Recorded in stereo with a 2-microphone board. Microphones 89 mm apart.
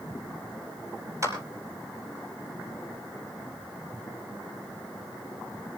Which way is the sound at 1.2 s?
35° right (ahead or behind).